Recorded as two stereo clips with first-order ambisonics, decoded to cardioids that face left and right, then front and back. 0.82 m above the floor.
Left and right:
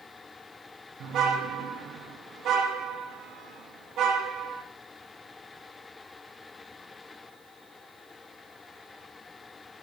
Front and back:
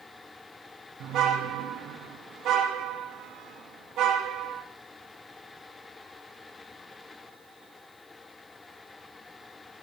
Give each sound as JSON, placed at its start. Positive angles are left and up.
{"t": 1.0, "sound": "a car horn", "azimuth_deg": -135, "distance_m": 4.5}